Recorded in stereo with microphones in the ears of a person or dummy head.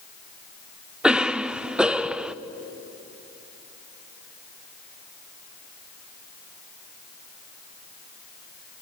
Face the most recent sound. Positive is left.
turn(degrees=-5)  # may be behind; listen again after turning